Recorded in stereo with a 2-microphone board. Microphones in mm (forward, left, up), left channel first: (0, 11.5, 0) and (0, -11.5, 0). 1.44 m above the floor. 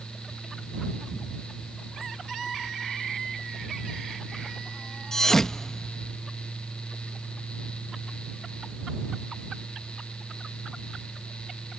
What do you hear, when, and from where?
5.1 s a thud: 20° left (ahead or behind)